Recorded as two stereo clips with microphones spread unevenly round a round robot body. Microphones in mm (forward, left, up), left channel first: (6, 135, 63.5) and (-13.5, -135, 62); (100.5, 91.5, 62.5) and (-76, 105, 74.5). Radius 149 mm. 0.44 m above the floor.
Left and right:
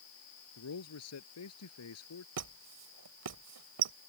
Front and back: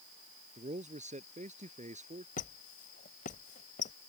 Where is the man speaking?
125° left.